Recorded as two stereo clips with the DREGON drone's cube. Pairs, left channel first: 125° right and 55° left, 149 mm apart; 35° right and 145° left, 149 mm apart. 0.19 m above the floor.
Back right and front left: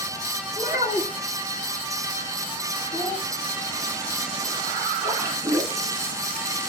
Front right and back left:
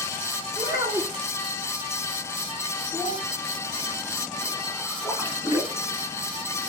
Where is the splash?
100° left, 1.4 m.